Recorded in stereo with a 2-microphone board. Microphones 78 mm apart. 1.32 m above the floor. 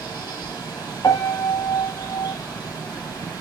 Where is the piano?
50° left (ahead or behind), 0.8 m.